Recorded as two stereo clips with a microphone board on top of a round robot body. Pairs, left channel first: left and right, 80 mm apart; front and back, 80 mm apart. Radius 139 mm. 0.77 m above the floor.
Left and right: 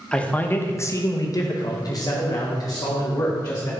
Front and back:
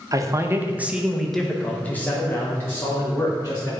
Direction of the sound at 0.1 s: 165° left.